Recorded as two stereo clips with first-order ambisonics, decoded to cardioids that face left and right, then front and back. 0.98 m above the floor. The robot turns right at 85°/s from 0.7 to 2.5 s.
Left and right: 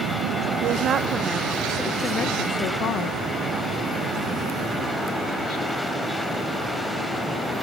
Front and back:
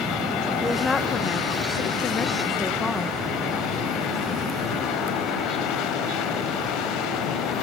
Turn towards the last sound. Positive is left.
turn(degrees=70)